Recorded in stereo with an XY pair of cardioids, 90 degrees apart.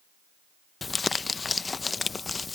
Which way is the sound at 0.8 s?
35° left.